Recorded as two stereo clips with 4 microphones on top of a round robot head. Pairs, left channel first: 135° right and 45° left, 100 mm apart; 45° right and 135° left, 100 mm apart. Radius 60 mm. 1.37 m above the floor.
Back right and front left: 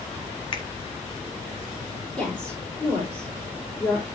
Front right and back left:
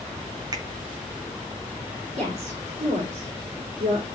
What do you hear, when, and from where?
0.5 s a finger snap: 175° right, 1.9 m
2.2 s a woman speaking: 145° left, 4.5 m